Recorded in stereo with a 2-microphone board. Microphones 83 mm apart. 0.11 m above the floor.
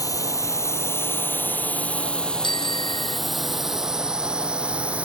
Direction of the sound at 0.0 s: 45° left (ahead or behind).